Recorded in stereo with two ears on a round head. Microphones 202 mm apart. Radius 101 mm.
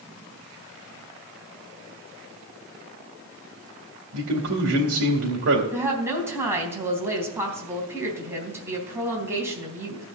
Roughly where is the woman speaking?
Centre.